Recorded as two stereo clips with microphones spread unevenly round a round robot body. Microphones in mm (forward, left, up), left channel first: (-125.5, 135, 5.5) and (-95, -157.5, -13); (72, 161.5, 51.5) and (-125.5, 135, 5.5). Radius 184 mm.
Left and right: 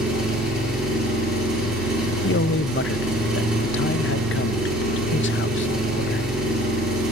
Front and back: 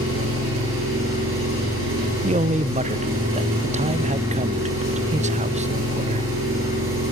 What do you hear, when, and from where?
0.0 s an engine running: 175° right, 9 m
2.2 s a man speaking: 145° left, 0.7 m